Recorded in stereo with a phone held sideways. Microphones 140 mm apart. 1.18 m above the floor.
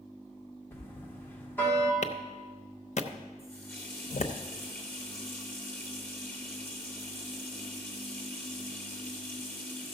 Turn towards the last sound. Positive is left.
turn(degrees=15)  # may be behind; listen again after turning